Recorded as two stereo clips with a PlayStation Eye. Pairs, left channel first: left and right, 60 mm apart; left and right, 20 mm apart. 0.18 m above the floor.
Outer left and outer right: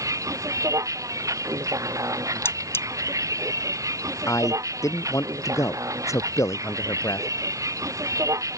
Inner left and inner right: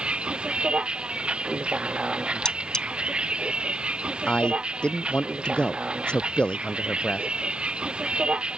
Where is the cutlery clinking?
45° left (ahead or behind).